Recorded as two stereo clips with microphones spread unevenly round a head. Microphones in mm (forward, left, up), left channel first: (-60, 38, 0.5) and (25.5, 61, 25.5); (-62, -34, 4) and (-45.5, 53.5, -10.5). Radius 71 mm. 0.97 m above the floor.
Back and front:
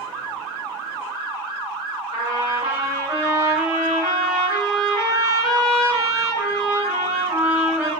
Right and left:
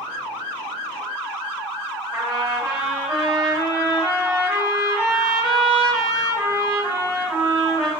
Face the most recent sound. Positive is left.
turn(degrees=-10)